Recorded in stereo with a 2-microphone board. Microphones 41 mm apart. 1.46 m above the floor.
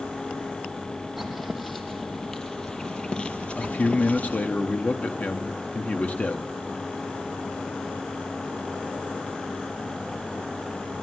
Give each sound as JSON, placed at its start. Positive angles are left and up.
{"t": 1.2, "sound": "footsteps", "side_deg": 0, "distance_m": 2.5}
{"t": 3.6, "sound": "a man speaking", "side_deg": 35, "distance_m": 1.2}